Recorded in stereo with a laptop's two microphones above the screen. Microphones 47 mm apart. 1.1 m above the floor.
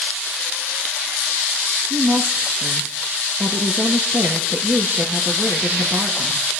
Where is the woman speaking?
50° right (ahead or behind), 1.4 m.